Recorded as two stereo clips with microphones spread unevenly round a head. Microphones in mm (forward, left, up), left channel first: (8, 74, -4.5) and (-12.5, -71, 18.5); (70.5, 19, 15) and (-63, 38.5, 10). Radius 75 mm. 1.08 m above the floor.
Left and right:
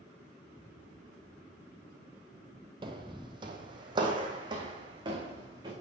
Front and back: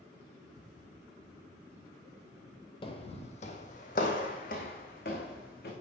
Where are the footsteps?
55° right, 1.6 m; by 5.7 s 35° right, 4.5 m.